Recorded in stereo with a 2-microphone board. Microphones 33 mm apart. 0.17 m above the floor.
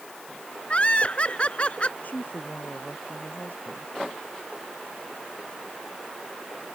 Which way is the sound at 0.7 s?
35° left (ahead or behind).